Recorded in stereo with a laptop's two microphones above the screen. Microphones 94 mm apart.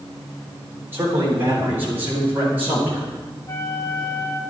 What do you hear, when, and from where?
0.9 s a man speaking: 25° right (ahead or behind), 3 m; by 3.1 s 20° right (ahead or behind), 5 m
3.5 s a flute: 25° left (ahead or behind), 0.6 m